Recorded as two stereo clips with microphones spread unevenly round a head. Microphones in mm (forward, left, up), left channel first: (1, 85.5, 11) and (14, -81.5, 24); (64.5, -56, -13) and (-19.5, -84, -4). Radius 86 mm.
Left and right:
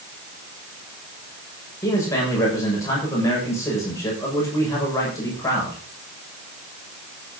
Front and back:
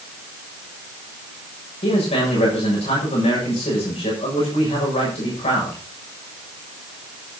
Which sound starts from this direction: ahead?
A man speaking, at 1.8 s.